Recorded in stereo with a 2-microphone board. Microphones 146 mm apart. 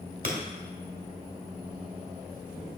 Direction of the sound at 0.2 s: 65° right (ahead or behind).